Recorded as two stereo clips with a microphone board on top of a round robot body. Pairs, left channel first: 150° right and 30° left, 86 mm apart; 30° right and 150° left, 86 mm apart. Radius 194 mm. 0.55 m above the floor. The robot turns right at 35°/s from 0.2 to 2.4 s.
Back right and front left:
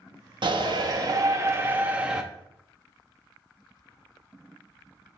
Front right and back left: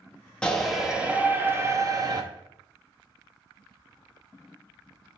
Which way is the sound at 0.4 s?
50° left.